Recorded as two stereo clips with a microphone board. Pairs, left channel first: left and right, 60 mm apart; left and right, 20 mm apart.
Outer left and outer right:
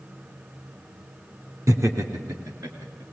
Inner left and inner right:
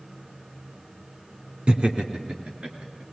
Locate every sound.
1.7 s laughter: 60° right (ahead or behind), 2 m; by 3.0 s 75° right (ahead or behind), 3.5 m